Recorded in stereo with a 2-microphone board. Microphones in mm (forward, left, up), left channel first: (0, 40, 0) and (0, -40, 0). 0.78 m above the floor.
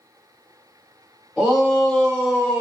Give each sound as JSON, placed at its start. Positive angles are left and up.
{"t": 1.4, "sound": "a shout", "side_deg": 0, "distance_m": 1.5}